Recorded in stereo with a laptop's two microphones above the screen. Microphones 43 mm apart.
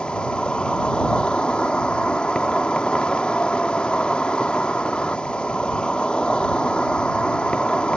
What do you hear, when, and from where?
0.0 s an insect: 25° left (ahead or behind)